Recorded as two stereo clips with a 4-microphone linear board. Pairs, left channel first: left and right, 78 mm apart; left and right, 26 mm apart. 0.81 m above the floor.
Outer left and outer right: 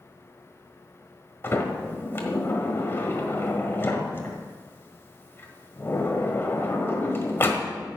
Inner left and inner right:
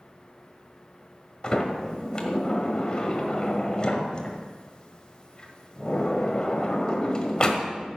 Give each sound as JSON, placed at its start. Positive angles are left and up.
{"t": 1.4, "sound": "a sliding door", "side_deg": 30, "distance_m": 1.5}